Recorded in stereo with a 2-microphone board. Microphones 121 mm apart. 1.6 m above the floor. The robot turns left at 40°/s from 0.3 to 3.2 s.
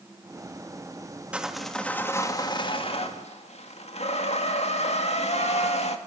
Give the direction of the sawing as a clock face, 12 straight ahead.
6 o'clock.